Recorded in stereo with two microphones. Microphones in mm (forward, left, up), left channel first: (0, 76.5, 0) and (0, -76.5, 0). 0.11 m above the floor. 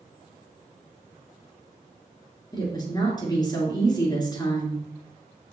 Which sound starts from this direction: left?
A woman speaking, at 2.5 s.